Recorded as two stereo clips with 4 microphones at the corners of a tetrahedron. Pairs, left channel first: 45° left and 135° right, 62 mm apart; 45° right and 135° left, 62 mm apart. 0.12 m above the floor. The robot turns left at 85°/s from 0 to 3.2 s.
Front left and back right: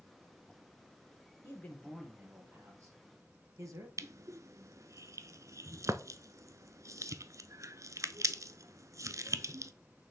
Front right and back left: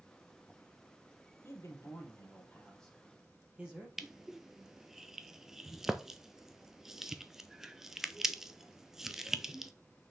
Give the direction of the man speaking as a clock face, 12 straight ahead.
12 o'clock.